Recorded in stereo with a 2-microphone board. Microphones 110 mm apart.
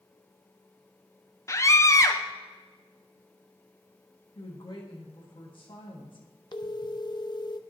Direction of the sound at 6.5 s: 45° left (ahead or behind).